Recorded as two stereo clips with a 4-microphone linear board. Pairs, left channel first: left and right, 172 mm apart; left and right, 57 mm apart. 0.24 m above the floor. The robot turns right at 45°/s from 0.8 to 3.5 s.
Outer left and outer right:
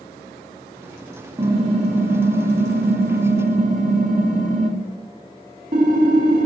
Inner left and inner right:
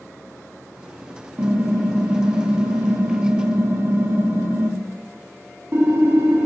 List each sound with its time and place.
1.4 s typing on a keyboard: 150° right, 0.5 m; by 6.5 s 55° right, 0.5 m